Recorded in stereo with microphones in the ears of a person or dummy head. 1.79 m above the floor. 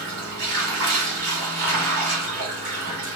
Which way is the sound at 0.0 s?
50° right (ahead or behind).